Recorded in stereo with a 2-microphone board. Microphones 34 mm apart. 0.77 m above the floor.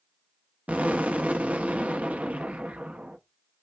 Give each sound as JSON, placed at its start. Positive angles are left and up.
{"t": 0.7, "sound": "an explosion", "side_deg": -50, "distance_m": 0.9}